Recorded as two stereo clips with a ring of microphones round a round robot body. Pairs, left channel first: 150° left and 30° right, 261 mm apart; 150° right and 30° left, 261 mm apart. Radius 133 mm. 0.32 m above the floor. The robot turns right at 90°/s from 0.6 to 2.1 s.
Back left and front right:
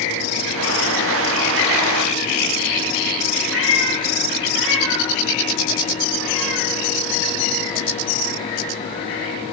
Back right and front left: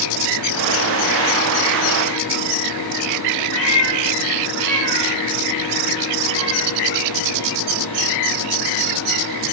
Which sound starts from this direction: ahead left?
A cat meowing, at 3.5 s.